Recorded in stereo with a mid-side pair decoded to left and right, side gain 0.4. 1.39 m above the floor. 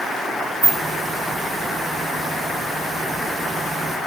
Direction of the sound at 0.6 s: 25° right.